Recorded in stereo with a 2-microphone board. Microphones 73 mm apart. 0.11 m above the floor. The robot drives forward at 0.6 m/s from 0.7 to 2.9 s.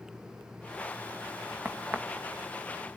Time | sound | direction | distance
1.6 | a crack | 25° right (ahead or behind) | 2.5 m